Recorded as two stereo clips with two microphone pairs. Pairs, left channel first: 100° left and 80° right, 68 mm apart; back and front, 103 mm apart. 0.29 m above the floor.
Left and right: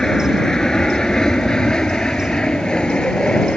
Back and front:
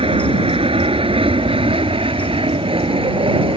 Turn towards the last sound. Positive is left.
turn(degrees=25)